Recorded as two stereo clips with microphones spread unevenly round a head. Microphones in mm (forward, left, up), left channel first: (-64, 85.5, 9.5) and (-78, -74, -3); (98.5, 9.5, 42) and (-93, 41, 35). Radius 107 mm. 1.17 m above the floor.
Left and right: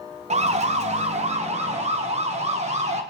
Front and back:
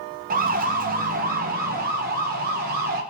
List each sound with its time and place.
0.3 s a siren: 140° right, 2 m; by 3.0 s 145° right, 4 m